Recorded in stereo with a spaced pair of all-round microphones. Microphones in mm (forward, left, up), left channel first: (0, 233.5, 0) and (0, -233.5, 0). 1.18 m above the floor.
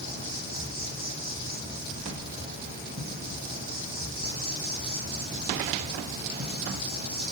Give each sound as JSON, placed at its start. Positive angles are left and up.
{"t": 0.0, "sound": "an insect", "side_deg": -20, "distance_m": 7.5}